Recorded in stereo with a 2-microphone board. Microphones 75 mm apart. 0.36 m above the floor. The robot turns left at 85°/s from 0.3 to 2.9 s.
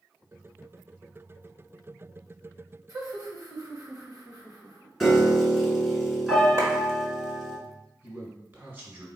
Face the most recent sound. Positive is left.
turn(degrees=-30)  # may be behind; listen again after turning